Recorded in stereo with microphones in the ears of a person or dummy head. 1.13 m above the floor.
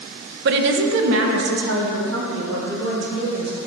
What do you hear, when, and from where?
0.5 s a woman speaking: 50° right (ahead or behind), 0.5 m; by 3.5 s 70° right (ahead or behind), 2 m